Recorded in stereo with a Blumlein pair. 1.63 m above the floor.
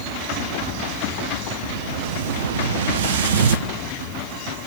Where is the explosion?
60° right, 1.3 m.